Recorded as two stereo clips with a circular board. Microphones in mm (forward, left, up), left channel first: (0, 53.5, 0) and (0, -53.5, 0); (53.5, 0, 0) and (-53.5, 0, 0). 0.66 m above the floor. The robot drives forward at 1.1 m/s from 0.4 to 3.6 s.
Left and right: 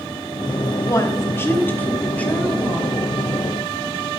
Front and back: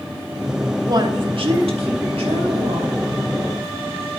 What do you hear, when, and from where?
0.9 s a woman speaking: 135° left, 1.0 m; by 3.0 s 170° left, 3 m